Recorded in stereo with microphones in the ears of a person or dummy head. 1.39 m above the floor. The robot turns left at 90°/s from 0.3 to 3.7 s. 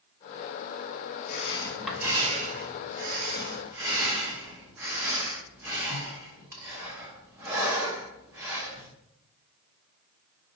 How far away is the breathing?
About 1.0 m.